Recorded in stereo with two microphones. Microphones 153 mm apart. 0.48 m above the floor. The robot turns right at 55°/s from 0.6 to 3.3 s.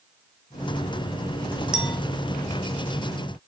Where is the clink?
5° right (ahead or behind), 1.7 m; by 2.0 s 10° left (ahead or behind), 1.7 m.